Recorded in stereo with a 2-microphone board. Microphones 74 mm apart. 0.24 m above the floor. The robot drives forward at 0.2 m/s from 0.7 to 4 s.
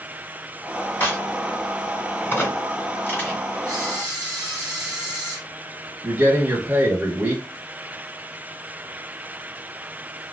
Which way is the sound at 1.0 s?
25° left (ahead or behind).